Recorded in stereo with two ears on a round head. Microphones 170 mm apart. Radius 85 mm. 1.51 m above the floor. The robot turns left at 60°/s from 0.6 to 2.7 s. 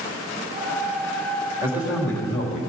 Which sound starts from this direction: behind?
A man speaking, at 1.6 s.